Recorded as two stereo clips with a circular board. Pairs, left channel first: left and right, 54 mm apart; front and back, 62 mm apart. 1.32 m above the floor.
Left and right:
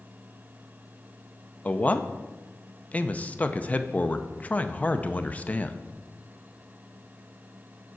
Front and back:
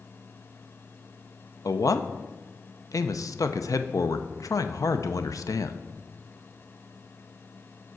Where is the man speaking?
25° left, 0.5 m.